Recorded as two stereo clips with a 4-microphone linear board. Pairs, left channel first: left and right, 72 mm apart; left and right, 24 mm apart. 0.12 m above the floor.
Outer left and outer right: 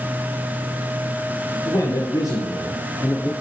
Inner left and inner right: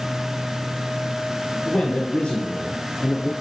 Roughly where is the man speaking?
Left.